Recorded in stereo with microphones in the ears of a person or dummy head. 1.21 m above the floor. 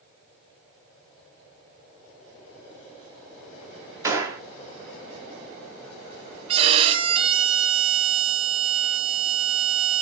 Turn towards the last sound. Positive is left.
turn(degrees=-30)  # may be behind; listen again after turning